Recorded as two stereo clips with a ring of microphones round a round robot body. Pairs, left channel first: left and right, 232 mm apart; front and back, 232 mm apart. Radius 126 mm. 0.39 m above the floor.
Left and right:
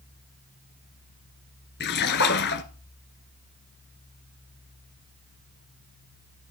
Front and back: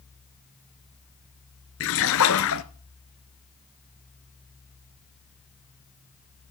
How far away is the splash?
About 1.0 m.